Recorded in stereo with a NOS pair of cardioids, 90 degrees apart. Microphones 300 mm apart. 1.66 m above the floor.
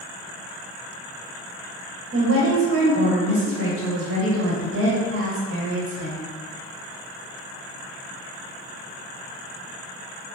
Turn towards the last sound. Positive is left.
turn(degrees=-50)